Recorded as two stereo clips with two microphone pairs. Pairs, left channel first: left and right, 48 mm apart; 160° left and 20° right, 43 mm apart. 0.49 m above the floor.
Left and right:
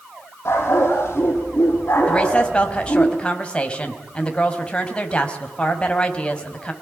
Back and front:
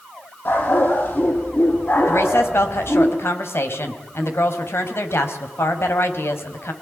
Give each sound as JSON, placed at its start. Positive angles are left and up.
{"t": 0.5, "sound": "a dog barking", "azimuth_deg": 130, "distance_m": 9.0}
{"t": 2.1, "sound": "a woman speaking", "azimuth_deg": 160, "distance_m": 4.0}